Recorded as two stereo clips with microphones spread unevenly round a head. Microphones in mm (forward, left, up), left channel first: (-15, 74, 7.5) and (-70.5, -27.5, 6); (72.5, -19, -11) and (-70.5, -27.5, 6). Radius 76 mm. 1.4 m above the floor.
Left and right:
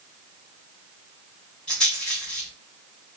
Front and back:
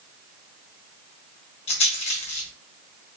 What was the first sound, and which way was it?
A rattle, 15° right.